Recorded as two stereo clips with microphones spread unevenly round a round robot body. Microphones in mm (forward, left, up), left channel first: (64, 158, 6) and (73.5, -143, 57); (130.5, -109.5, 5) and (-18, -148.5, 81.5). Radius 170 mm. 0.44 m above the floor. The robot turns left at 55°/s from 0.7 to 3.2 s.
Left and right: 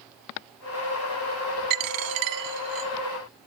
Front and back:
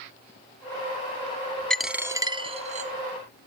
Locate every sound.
1.7 s a dropped coin: 80° right, 1.0 m; by 2.9 s 145° right, 1.0 m